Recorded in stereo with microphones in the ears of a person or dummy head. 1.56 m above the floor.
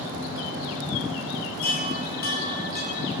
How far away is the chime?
About 1.8 m.